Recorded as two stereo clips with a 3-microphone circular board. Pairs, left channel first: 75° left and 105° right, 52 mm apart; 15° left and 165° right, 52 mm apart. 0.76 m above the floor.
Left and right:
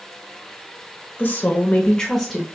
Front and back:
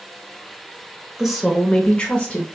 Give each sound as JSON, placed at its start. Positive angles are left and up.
{"t": 1.2, "sound": "a woman speaking", "azimuth_deg": 110, "distance_m": 1.1}